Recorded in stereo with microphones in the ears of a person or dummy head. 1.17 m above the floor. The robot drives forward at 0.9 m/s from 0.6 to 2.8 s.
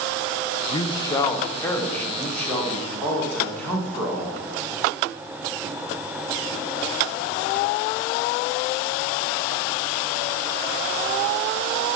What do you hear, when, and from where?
0.7 s a man speaking: 35° left (ahead or behind), 0.7 m; by 4.4 s 10° left (ahead or behind), 2.5 m